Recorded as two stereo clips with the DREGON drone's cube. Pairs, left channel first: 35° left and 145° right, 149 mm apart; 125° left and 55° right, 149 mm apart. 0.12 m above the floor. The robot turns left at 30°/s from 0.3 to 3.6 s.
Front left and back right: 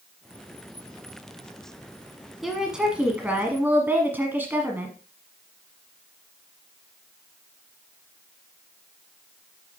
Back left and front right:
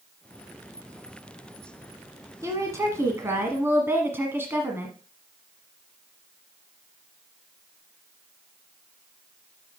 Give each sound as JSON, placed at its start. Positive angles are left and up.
{"t": 2.4, "sound": "a woman speaking", "azimuth_deg": -60, "distance_m": 1.3}